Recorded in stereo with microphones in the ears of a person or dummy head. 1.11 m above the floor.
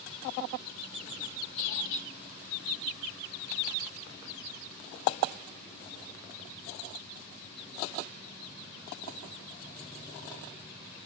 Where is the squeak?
65° left (ahead or behind), 5 m.